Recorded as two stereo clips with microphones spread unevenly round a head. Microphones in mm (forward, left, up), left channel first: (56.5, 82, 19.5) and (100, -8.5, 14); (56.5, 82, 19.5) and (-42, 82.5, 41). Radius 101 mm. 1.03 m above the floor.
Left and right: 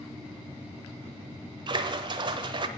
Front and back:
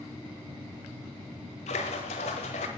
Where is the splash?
35° right, 1.1 m.